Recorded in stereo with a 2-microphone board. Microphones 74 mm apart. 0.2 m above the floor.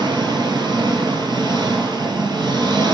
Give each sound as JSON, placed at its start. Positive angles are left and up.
{"t": 0.0, "sound": "an engine running", "side_deg": -80, "distance_m": 1.2}